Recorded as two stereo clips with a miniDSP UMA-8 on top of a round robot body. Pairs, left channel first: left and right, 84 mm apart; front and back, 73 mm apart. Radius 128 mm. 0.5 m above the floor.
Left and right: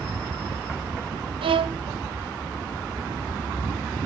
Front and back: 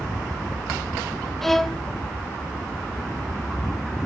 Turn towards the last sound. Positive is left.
turn(degrees=-85)